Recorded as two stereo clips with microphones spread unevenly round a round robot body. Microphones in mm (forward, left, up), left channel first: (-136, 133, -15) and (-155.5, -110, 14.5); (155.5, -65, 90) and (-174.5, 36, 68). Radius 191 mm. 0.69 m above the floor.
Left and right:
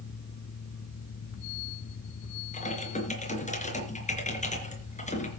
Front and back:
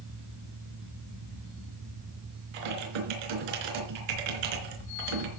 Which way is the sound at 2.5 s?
150° left.